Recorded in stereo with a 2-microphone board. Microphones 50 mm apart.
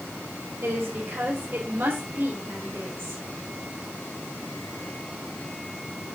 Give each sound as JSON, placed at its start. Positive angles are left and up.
{"t": 0.6, "sound": "a woman speaking", "side_deg": -50, "distance_m": 4.5}